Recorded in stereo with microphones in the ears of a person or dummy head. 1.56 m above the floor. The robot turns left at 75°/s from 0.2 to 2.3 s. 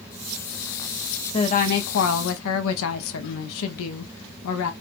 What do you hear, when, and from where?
1.3 s a woman speaking: 150° left, 0.6 m; by 4.7 s 75° left, 0.6 m